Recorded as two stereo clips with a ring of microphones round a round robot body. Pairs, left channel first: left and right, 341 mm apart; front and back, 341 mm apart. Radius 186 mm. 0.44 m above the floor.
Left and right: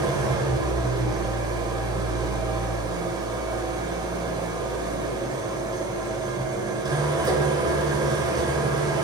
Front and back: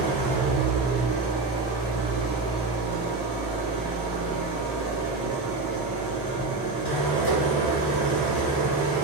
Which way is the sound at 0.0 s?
10° right.